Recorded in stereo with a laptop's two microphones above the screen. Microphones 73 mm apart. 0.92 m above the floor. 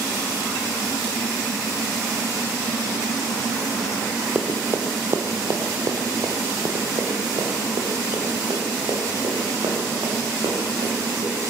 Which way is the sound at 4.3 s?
25° right (ahead or behind).